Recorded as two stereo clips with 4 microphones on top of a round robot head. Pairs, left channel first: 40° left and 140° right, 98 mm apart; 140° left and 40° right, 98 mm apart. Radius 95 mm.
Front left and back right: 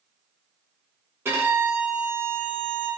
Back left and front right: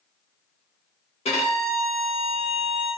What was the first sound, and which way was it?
A violin, 155° left.